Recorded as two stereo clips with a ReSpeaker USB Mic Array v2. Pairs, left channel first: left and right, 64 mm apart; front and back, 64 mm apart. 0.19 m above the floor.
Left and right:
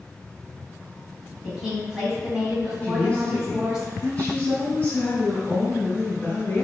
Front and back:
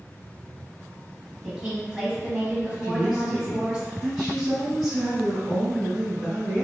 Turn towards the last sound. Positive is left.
turn(degrees=100)